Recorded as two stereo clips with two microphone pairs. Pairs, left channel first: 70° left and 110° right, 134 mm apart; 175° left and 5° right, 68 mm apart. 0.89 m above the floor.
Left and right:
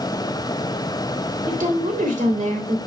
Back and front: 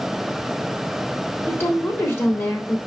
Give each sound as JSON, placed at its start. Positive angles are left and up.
{"t": 1.5, "sound": "a woman speaking", "azimuth_deg": -130, "distance_m": 3.0}